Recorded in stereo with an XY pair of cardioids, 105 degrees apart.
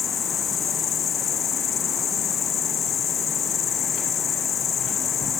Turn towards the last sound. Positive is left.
turn(degrees=55)